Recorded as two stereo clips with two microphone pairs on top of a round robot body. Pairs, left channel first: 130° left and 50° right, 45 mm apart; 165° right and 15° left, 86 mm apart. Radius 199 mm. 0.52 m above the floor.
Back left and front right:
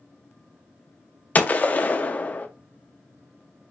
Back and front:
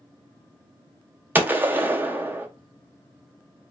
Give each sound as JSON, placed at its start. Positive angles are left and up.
{"t": 1.4, "sound": "a gunshot", "azimuth_deg": 80, "distance_m": 0.6}